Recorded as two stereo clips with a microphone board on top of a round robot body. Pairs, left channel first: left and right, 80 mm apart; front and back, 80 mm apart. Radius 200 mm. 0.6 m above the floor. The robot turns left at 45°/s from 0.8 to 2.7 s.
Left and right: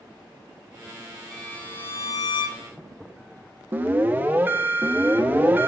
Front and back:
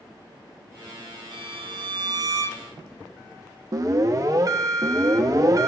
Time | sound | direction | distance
1.3 | a violin | 175° left | 0.7 m
3.7 | an alarm | 150° right | 1.7 m